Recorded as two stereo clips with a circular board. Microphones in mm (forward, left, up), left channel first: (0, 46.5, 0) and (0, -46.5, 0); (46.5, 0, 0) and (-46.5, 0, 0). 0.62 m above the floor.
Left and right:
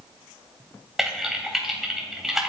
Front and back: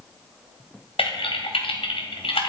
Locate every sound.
1.0 s typing on a keyboard: 5° right, 2.5 m